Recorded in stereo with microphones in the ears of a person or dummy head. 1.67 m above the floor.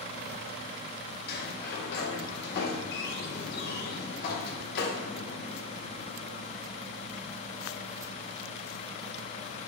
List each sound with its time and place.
1.3 s a sliding door: 60° left (ahead or behind), 0.9 m